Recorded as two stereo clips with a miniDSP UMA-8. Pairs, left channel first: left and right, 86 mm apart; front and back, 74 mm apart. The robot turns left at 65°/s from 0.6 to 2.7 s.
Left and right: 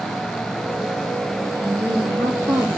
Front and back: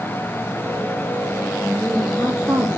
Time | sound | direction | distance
1.6 | a woman speaking | 50° right | 3.5 m